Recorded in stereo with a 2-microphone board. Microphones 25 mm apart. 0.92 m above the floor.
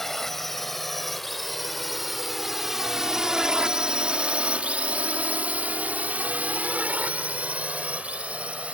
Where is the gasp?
No gasp in this recording.